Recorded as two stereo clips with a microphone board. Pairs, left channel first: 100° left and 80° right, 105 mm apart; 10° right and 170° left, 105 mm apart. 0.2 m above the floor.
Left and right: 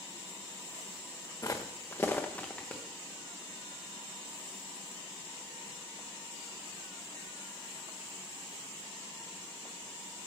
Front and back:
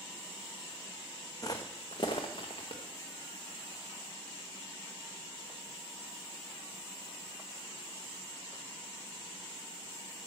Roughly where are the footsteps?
Ahead left.